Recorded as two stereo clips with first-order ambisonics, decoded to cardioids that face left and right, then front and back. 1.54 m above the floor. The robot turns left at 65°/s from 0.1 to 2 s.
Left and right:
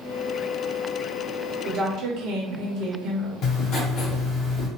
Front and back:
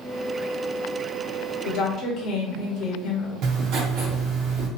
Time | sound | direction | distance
1.6 | a woman speaking | 25° right | 0.7 m
3.4 | writing | 140° left | 0.8 m